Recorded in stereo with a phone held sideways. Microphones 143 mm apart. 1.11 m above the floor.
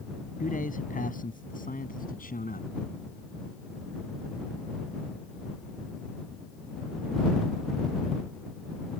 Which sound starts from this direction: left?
A man speaking, at 0.4 s.